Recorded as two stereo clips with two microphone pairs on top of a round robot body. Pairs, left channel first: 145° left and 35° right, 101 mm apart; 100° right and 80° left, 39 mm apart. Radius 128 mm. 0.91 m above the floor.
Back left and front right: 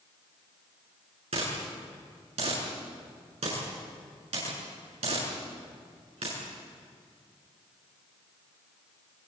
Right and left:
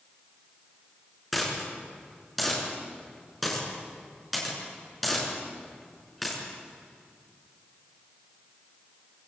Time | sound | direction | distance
1.3 | a dropped coin | 10° right | 7 m